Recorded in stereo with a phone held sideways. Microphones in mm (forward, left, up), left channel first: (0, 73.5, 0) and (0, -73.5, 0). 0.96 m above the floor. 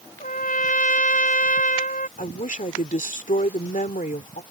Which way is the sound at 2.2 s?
65° left (ahead or behind).